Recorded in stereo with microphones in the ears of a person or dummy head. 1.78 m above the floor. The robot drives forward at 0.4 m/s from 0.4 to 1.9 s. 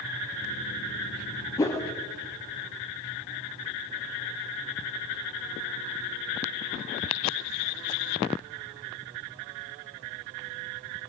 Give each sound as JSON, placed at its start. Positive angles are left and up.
{"t": 1.6, "sound": "a whoosh", "side_deg": 15, "distance_m": 0.7}